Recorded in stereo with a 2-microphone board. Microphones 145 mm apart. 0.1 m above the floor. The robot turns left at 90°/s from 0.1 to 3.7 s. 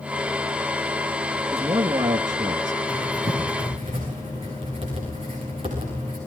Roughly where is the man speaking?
Centre.